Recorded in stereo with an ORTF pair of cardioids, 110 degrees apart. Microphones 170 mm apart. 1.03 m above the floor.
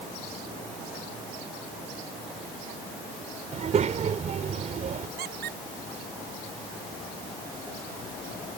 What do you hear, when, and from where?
3.5 s a child speaking: 40° right
5.2 s a squeak: 65° right